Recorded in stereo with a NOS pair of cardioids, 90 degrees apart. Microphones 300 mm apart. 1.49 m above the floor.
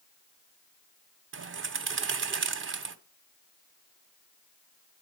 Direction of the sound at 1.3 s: 40° right.